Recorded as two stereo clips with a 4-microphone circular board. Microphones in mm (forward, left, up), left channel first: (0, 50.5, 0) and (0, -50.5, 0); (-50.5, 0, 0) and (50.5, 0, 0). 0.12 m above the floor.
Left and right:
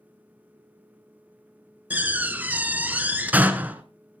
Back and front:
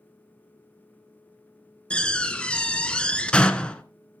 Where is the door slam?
120° right, 0.8 m.